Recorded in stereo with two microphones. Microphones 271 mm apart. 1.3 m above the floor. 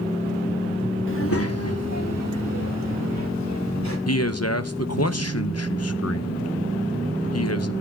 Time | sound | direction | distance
1.1 | a child speaking | 45° left (ahead or behind) | 0.8 m
4.1 | a man speaking | 65° left (ahead or behind) | 0.7 m